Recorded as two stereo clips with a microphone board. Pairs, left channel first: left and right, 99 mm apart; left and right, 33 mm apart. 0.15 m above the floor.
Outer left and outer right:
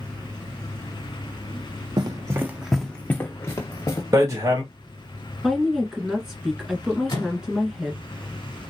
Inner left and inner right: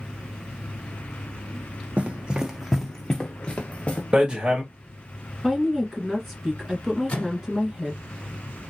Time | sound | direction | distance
2.0 | running footsteps | 45° right (ahead or behind) | 0.6 m
4.1 | hammering | 35° right (ahead or behind) | 1.8 m
5.4 | a woman speaking | 5° right (ahead or behind) | 1.5 m
7.1 | a microwave | 45° left (ahead or behind) | 1.5 m